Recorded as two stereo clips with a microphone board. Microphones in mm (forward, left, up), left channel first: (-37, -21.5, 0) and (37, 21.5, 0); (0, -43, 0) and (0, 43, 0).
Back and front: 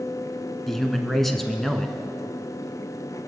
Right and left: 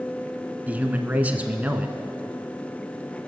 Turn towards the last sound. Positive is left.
turn(degrees=125)